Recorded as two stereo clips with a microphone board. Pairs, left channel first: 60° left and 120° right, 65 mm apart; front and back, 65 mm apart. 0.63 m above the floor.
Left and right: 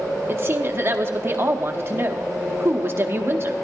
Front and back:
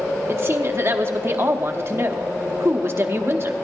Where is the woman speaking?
155° right, 0.9 m.